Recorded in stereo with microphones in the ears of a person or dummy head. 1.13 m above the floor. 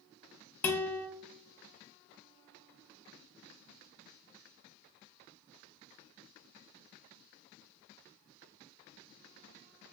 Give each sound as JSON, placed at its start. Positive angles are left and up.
{"t": 0.6, "sound": "a guitar", "side_deg": 10, "distance_m": 0.6}